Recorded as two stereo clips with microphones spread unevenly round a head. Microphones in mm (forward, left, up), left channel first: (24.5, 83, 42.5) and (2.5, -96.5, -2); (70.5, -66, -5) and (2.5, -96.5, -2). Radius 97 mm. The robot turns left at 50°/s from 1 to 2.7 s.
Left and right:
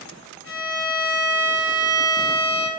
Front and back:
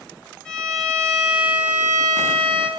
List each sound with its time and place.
0.5 s a violin: 55° right, 1.8 m; by 2.7 s 140° right, 1.8 m